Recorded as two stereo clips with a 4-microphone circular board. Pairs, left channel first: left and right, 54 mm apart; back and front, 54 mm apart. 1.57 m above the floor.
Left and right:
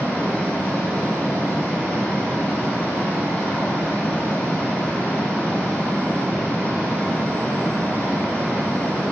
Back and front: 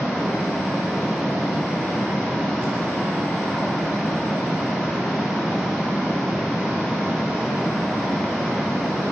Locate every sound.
0.0 s running water: 90° left, 1.9 m